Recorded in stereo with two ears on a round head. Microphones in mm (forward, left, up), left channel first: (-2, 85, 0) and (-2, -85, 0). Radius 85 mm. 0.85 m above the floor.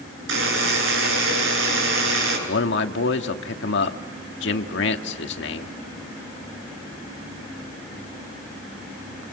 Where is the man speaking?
65° left (ahead or behind), 1.8 m.